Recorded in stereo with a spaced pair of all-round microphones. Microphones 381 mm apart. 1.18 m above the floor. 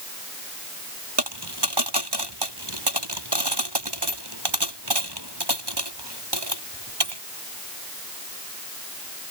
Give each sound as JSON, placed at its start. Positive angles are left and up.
{"t": 1.2, "sound": "a dropped coin", "side_deg": -75}